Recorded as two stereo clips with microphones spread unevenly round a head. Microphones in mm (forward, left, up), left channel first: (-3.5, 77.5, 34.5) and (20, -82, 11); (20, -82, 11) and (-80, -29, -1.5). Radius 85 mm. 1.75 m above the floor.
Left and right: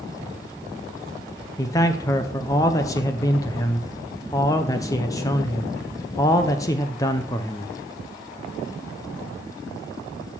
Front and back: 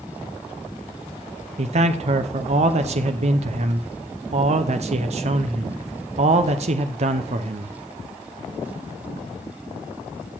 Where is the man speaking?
160° left, 0.7 m.